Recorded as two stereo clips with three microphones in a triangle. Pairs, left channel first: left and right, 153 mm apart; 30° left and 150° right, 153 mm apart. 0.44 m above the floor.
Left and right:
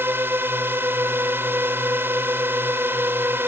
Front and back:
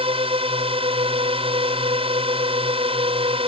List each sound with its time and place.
0.0 s a drone: 155° right